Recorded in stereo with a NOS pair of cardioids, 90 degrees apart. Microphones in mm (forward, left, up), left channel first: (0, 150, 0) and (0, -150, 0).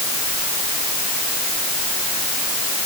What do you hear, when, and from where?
Only background noise.